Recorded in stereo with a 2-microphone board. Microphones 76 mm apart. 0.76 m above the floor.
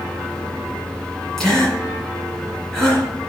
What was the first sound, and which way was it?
A gasp, 5° left (ahead or behind).